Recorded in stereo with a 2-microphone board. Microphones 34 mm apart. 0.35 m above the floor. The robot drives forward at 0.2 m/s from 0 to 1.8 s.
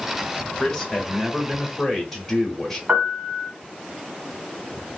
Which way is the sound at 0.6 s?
10° left (ahead or behind).